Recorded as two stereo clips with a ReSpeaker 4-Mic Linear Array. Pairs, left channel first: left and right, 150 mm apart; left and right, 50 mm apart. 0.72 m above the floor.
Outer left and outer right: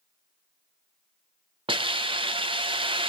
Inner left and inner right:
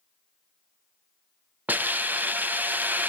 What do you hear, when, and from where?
1.7 s a hiss: 35° right (ahead or behind), 0.6 m